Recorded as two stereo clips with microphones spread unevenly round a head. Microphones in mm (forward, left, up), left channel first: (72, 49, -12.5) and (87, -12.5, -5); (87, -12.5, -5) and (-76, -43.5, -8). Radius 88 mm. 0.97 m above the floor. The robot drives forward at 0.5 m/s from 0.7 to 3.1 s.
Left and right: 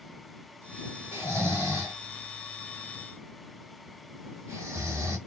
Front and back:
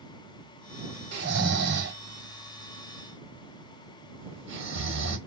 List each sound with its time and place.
1.1 s snoring: 175° left, 1.5 m